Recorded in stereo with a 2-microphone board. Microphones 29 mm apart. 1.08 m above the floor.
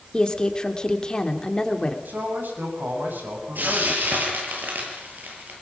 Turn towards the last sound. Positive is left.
turn(degrees=-85)